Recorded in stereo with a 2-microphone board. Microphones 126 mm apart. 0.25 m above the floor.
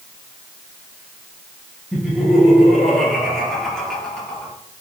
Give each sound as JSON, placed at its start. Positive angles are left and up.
{"t": 1.9, "sound": "laughter", "side_deg": -5, "distance_m": 5.0}